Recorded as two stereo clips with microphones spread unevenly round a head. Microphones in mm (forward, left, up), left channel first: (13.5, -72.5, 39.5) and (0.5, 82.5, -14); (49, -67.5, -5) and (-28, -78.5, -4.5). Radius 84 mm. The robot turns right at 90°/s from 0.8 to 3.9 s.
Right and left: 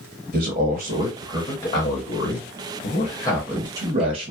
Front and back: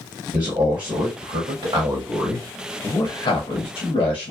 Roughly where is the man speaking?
Behind left.